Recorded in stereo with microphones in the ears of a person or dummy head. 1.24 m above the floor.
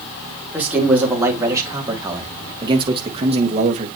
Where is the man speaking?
5° right (ahead or behind), 4 m; by 3.9 s 40° right (ahead or behind), 2 m.